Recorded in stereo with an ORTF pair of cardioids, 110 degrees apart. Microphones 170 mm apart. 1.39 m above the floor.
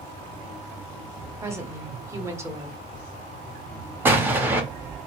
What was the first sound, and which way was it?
A woman speaking, 15° right.